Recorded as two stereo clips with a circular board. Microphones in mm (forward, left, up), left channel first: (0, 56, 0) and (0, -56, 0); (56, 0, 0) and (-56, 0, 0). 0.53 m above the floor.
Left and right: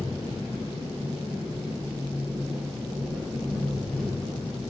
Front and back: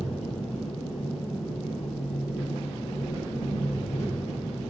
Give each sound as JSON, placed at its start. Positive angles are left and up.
{"t": 0.0, "sound": "an engine running", "azimuth_deg": 0, "distance_m": 6.0}